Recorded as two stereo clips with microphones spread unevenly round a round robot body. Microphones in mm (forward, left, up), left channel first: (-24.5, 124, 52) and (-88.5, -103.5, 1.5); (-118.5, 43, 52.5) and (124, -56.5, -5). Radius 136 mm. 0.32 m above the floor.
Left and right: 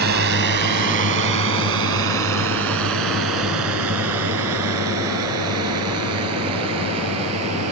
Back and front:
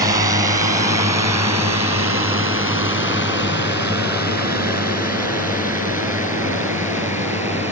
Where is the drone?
85° right; by 7.7 s 105° right.